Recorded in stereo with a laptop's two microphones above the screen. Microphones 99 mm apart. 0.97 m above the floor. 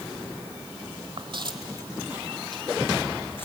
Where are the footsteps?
50° right (ahead or behind), 1.6 m; by 3.5 s 20° left (ahead or behind), 2.5 m.